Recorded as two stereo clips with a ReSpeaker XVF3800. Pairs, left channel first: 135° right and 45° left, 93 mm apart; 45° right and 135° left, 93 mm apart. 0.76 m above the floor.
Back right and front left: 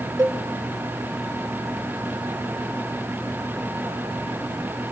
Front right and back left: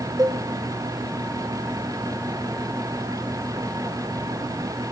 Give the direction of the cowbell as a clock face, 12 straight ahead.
9 o'clock.